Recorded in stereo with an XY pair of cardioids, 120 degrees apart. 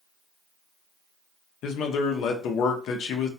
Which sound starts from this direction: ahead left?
A man speaking, at 1.6 s.